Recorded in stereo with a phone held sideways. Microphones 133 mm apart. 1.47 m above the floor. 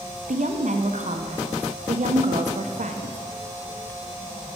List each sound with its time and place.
0.3 s a woman speaking: 65° right (ahead or behind), 0.9 m